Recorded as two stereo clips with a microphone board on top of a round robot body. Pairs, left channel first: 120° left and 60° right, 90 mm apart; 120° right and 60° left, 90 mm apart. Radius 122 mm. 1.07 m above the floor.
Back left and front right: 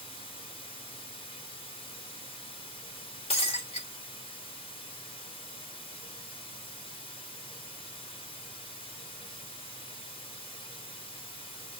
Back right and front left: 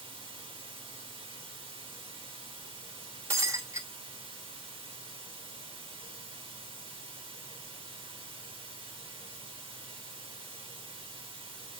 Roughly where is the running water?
Left.